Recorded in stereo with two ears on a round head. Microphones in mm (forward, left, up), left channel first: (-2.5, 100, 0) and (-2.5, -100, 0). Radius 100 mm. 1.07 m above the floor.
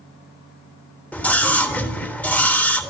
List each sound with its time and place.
1.1 s a scream: 5° left (ahead or behind), 3 m